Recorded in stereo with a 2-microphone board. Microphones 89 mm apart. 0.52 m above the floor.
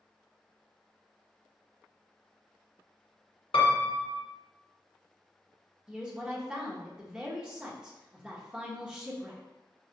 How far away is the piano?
About 0.6 m.